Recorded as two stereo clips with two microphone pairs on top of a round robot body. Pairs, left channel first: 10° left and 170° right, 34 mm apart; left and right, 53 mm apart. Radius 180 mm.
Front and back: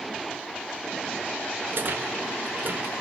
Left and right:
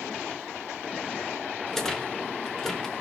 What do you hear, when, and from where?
1.7 s a rattle: 170° left, 1.5 m